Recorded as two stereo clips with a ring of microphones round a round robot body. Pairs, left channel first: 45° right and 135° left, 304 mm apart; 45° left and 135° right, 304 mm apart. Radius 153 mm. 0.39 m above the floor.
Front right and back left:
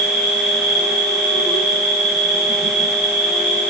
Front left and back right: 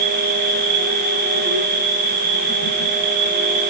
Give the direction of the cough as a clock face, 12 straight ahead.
I don't hear a cough.